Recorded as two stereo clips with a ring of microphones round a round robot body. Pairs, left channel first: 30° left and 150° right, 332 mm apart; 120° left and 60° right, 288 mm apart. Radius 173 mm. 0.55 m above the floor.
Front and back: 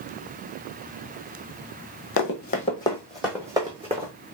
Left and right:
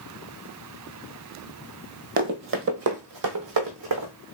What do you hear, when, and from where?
2.2 s running footsteps: 10° right, 0.8 m; by 4.1 s 80° right, 1.3 m